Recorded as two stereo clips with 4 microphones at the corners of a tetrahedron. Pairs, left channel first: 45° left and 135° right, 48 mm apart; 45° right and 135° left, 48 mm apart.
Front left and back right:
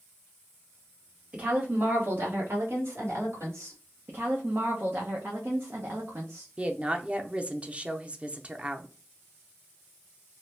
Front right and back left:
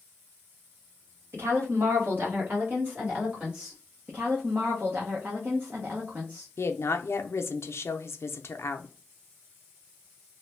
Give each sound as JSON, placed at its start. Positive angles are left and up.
{"t": 1.3, "sound": "a woman speaking", "azimuth_deg": 160, "distance_m": 1.3}
{"t": 4.1, "sound": "a woman speaking", "azimuth_deg": -175, "distance_m": 0.8}
{"t": 6.6, "sound": "a woman speaking", "azimuth_deg": -70, "distance_m": 0.5}